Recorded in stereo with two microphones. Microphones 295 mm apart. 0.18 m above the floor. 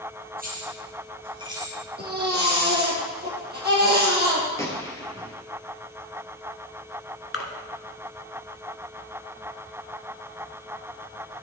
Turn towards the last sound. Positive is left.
turn(degrees=50)  # may be behind; listen again after turning